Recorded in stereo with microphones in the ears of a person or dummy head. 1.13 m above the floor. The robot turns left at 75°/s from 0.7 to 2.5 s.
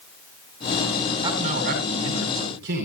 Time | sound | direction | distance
1.2 | a man speaking | 25° right | 4.5 m